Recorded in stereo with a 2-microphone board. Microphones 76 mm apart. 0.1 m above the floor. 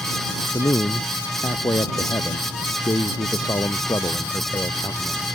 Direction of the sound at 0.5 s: 50° left (ahead or behind).